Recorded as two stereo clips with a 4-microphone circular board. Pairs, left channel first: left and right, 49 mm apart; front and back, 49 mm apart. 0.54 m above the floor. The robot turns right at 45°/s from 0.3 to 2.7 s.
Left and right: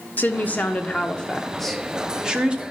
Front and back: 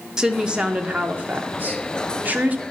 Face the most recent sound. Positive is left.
turn(degrees=-140)